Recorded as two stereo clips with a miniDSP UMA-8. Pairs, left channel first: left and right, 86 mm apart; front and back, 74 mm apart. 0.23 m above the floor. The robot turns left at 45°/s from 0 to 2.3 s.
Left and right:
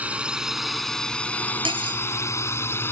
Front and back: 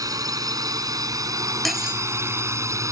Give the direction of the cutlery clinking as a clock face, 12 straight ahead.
3 o'clock.